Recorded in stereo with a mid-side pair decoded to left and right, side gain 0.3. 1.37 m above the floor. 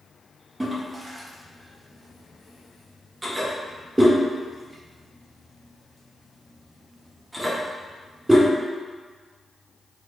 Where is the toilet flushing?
20° right, 0.7 m.